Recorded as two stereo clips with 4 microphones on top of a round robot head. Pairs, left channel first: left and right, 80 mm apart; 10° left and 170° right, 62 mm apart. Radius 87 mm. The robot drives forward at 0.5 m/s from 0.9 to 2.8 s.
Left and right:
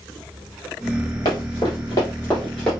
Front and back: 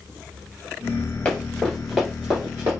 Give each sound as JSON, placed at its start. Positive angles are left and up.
{"t": 1.2, "sound": "running footsteps", "azimuth_deg": 70, "distance_m": 1.8}